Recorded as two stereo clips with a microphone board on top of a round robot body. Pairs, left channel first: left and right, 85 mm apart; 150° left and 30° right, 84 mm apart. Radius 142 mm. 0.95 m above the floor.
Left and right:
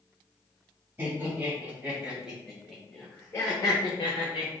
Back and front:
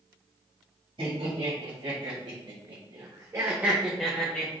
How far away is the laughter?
About 1.9 m.